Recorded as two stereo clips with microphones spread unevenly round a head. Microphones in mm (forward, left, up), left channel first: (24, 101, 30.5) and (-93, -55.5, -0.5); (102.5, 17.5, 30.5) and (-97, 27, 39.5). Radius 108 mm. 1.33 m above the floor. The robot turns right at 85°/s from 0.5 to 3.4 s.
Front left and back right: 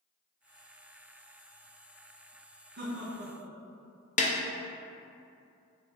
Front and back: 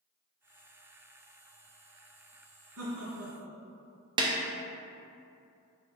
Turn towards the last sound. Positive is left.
turn(degrees=110)